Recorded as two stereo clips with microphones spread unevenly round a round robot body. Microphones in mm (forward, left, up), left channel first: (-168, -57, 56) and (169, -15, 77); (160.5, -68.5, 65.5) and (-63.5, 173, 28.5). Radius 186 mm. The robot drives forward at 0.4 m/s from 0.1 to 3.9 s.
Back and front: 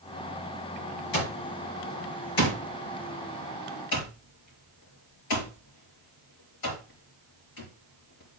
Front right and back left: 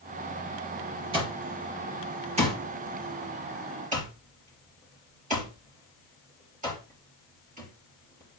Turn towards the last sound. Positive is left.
turn(degrees=-155)